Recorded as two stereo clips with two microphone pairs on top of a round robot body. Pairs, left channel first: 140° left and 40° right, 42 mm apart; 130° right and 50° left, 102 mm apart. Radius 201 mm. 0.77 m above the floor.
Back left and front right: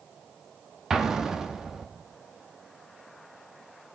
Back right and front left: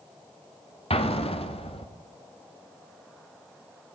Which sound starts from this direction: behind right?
An explosion, at 0.9 s.